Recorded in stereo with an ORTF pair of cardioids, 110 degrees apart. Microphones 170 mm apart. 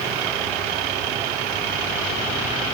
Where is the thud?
No thud in this recording.